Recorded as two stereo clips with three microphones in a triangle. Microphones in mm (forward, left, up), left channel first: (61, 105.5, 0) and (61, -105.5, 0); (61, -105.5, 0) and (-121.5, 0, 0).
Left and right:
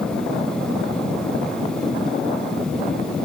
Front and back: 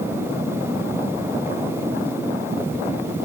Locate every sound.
Only background noise.